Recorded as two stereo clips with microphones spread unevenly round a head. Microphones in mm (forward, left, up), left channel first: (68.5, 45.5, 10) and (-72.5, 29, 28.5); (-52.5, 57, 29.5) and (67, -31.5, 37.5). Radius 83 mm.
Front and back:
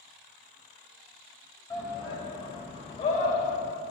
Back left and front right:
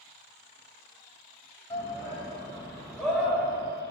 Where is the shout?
75° left, 4 m; by 3.6 s 40° left, 3 m.